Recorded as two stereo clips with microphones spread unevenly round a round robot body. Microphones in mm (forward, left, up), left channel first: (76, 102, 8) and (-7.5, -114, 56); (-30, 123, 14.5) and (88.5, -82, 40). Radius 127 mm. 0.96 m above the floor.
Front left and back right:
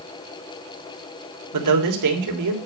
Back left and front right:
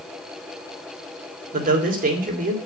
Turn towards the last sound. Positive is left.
turn(degrees=-120)